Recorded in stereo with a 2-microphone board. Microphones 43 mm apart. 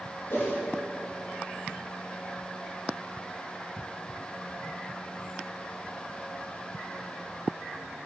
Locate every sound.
0.3 s a whoosh: 65° left (ahead or behind), 2.5 m